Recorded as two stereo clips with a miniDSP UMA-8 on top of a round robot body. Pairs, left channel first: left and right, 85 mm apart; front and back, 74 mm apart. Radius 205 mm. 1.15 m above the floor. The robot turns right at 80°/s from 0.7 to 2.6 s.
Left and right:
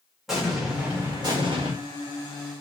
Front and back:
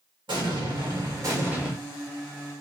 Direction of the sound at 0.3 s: 175° right.